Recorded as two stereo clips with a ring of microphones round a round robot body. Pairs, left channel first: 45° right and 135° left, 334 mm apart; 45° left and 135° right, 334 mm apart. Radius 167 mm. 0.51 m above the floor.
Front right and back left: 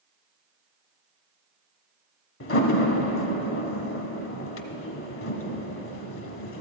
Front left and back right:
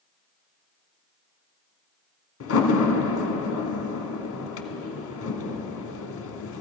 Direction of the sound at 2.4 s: Straight ahead.